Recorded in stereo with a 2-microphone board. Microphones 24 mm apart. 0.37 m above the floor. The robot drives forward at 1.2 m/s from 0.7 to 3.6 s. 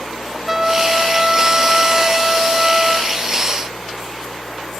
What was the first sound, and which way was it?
A trumpet, 10° right (ahead or behind).